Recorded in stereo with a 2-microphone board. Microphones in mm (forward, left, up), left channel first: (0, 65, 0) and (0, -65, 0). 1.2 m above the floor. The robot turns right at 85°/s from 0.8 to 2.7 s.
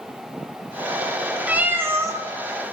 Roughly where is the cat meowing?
Centre.